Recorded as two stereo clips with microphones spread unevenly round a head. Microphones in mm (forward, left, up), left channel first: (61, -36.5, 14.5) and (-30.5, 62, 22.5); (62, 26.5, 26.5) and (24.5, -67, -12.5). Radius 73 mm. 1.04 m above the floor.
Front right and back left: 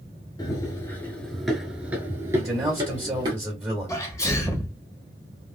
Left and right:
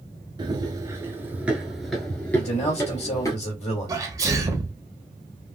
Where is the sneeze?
105° right, 1.1 m.